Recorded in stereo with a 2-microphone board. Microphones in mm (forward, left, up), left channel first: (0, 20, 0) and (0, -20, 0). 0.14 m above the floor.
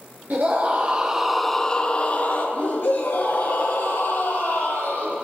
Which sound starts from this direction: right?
A scream, at 0.3 s.